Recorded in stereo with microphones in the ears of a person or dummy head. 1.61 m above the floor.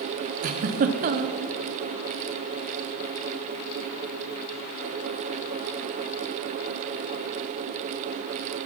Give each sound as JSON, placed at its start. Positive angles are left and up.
{"t": 0.4, "sound": "a giggle", "side_deg": -40, "distance_m": 0.6}